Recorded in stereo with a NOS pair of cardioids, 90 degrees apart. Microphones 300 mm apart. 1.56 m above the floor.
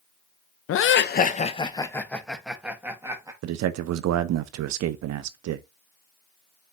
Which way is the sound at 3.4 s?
65° right.